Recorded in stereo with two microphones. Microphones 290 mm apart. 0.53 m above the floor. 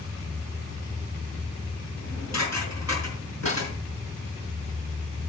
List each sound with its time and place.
2.0 s dishes clattering: 65° left (ahead or behind), 5 m
3.5 s a thud: 25° left (ahead or behind), 9.5 m